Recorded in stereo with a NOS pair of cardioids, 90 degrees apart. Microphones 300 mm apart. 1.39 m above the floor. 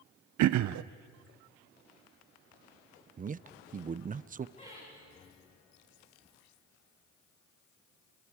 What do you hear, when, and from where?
0.4 s throat clearing: 70° right, 0.7 m
3.2 s a man speaking: 25° right, 0.6 m
4.6 s laughter: 25° left, 8 m